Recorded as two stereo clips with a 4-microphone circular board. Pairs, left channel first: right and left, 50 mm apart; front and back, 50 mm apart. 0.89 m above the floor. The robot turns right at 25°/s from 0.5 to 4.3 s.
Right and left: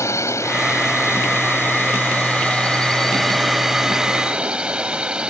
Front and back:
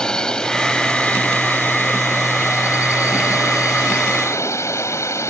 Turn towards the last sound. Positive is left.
turn(degrees=20)